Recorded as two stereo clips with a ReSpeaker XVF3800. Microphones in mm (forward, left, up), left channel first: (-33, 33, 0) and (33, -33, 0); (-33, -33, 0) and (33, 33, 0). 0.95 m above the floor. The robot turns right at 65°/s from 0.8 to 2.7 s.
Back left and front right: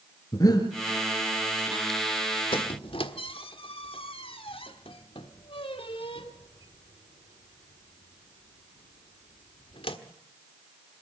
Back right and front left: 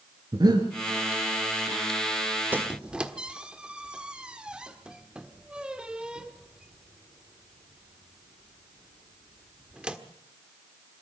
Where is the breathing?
85° left, 3.5 m.